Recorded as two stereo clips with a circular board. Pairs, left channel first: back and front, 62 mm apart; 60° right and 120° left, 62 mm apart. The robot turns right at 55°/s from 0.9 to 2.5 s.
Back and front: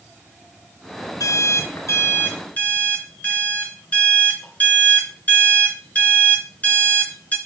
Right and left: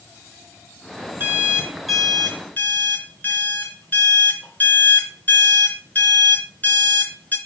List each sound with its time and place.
1.2 s an alarm clock: 170° left, 2.5 m; by 7.4 s 120° right, 2.5 m